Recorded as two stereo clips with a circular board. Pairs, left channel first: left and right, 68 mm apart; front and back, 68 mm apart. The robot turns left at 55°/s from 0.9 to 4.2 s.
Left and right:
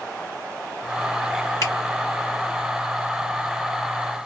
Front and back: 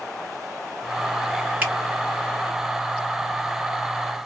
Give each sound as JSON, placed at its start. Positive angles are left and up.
{"t": 1.6, "sound": "a finger snap", "azimuth_deg": 110, "distance_m": 1.8}